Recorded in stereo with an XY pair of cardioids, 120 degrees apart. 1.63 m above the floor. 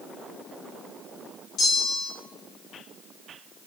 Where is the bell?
55° left, 0.7 m.